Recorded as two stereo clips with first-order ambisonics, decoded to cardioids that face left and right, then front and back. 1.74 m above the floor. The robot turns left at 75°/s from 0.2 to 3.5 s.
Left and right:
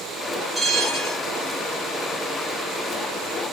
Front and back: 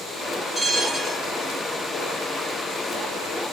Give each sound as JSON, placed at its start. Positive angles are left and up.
{"t": 0.6, "sound": "a bell", "azimuth_deg": -15, "distance_m": 1.4}